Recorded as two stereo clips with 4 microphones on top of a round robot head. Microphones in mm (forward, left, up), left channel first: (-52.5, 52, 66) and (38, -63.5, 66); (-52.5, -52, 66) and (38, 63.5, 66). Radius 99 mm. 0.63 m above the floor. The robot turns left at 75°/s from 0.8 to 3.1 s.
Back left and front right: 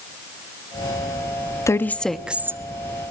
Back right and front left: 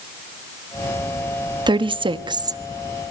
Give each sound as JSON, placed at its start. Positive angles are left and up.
{"t": 1.7, "sound": "a woman speaking", "azimuth_deg": 75, "distance_m": 1.0}